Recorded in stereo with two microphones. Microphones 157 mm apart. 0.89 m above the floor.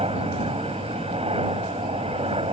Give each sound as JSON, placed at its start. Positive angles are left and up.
{"t": 0.0, "sound": "a helicopter", "side_deg": -40}